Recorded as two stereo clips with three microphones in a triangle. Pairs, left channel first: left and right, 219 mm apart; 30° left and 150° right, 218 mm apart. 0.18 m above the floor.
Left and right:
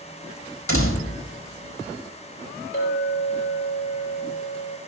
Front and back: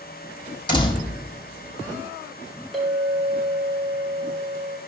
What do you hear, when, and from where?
0.7 s a door slam: 100° left, 4.5 m
2.7 s a clink: 120° left, 5.5 m